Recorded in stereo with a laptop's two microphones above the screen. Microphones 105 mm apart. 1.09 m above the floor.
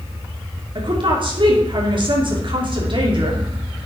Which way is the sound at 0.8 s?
50° right (ahead or behind).